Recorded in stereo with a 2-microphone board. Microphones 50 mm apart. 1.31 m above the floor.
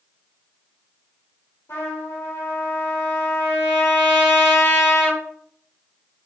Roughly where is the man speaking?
No man speaking in this recording.